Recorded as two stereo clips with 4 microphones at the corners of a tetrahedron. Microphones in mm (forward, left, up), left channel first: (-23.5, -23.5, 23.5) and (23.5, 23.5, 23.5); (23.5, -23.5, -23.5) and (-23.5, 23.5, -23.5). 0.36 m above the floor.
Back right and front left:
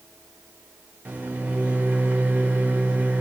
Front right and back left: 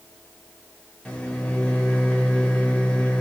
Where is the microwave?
5° left, 0.8 m.